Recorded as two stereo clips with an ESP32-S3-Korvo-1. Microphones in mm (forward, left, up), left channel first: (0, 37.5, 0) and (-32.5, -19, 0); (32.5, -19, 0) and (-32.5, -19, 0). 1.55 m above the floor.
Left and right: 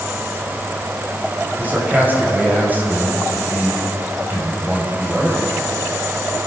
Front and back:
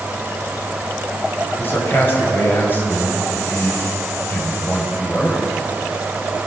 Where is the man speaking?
55° right, 6.5 m.